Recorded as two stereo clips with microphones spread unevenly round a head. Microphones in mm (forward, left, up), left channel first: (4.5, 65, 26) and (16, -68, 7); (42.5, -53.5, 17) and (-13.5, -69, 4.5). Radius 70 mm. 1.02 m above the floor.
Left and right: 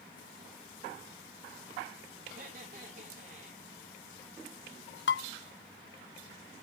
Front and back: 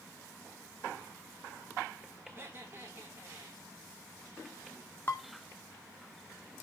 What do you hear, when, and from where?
2.2 s laughter: 115° right, 4.5 m
5.1 s dishes clattering: 90° left, 1.7 m